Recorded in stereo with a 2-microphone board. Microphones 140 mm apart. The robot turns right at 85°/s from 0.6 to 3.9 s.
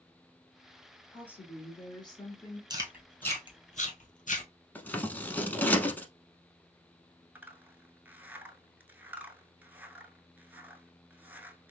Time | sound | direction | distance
1.1 | a woman speaking | 10° left | 1.7 m
2.7 | chewing | 30° right (ahead or behind) | 1.3 m
4.8 | scissors | 15° left (ahead or behind) | 0.7 m
7.3 | a zipper | 15° right (ahead or behind) | 0.5 m